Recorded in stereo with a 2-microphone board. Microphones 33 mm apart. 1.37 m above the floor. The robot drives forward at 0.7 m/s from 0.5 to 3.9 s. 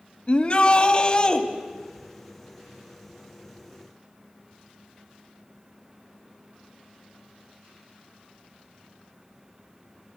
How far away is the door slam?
I don't hear a door slam.